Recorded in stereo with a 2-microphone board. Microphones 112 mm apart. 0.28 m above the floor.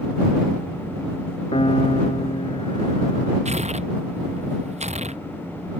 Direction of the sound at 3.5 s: 85° right.